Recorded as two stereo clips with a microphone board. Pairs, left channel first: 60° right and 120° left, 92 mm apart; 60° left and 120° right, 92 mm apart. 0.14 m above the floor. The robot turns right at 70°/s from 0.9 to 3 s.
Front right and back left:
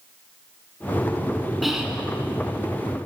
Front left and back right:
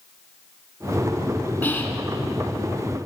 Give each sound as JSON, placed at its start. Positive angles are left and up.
{"t": 1.6, "sound": "whispering", "azimuth_deg": 35, "distance_m": 1.1}